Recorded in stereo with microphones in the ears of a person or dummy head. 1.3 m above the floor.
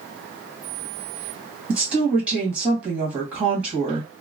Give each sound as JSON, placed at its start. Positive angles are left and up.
{"t": 1.7, "sound": "a woman speaking", "side_deg": -10, "distance_m": 1.4}